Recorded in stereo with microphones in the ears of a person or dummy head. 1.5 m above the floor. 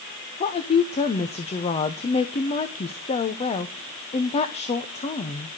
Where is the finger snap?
No finger snap in this recording.